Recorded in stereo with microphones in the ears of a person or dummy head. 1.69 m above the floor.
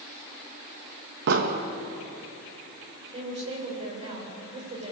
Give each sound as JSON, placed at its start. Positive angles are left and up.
{"t": 1.3, "sound": "an explosion", "side_deg": -65, "distance_m": 2.5}
{"t": 3.1, "sound": "a woman speaking", "side_deg": -30, "distance_m": 8.0}